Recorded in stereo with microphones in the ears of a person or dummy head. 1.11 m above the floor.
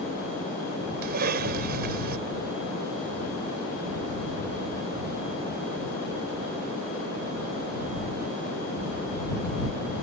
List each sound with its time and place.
1.0 s a cough: 50° right (ahead or behind)